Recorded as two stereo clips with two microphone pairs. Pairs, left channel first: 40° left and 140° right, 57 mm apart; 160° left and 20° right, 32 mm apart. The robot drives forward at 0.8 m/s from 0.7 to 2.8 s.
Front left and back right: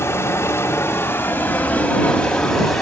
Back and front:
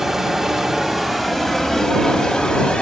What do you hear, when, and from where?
0.0 s running water: 60° left, 2.0 m; by 2.8 s 125° left, 2 m